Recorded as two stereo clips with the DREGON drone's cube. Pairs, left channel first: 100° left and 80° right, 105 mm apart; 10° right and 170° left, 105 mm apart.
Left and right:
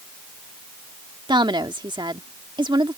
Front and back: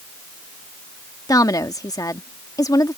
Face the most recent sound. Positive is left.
turn(degrees=-55)